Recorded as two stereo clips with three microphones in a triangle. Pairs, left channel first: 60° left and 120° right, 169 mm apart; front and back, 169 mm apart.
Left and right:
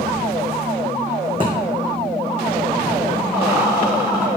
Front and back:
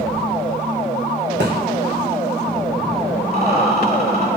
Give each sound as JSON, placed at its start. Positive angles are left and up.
{"t": 1.4, "sound": "a thud", "azimuth_deg": 180, "distance_m": 2.5}
{"t": 3.3, "sound": "a rattle", "azimuth_deg": 160, "distance_m": 3.0}